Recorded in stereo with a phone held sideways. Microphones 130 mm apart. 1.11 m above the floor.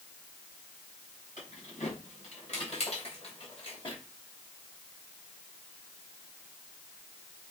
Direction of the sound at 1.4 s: 75° left (ahead or behind).